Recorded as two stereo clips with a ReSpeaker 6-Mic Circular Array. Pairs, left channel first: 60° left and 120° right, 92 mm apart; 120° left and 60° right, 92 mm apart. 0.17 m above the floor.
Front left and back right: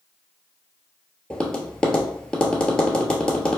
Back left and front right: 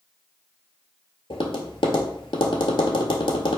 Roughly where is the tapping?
Behind left.